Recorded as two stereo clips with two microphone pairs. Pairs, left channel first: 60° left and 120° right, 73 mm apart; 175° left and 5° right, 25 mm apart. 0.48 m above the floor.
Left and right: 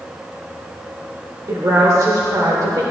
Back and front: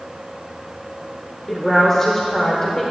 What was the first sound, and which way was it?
A woman speaking, 115° right.